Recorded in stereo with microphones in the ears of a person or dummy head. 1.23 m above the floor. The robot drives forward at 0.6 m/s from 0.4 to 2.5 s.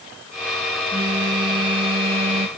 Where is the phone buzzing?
25° right (ahead or behind); by 2.5 s 40° right (ahead or behind).